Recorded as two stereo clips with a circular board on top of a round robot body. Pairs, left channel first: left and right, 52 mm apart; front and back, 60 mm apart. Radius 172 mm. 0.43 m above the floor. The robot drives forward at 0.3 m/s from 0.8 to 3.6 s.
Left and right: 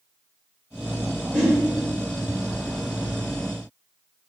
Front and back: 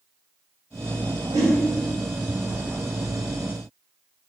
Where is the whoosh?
175° left, 0.6 m.